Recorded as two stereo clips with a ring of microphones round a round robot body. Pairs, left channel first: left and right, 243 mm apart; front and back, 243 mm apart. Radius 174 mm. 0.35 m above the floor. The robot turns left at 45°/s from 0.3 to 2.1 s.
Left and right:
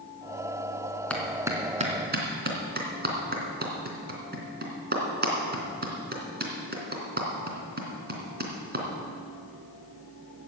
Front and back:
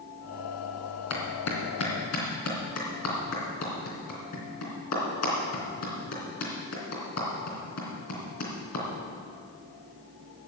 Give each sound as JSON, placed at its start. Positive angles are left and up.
{"t": 1.1, "sound": "a clap", "azimuth_deg": 5, "distance_m": 3.0}